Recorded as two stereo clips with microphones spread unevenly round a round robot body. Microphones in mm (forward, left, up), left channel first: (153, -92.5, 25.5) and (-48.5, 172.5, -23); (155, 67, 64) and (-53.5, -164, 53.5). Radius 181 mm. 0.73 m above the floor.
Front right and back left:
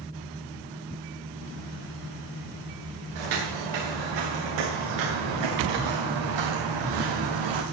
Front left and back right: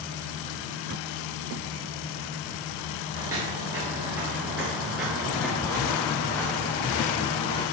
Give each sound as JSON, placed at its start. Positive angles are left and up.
{"t": 3.1, "sound": "footsteps", "azimuth_deg": 145, "distance_m": 4.5}